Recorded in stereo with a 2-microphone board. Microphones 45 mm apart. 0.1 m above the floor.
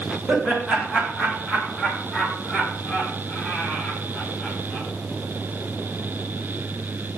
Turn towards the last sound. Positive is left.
turn(degrees=25)  # may be behind; listen again after turning